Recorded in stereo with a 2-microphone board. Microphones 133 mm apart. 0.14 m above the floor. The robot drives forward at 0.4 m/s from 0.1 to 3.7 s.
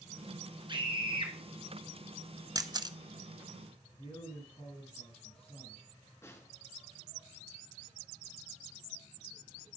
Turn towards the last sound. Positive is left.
turn(degrees=20)  # may be behind; listen again after turning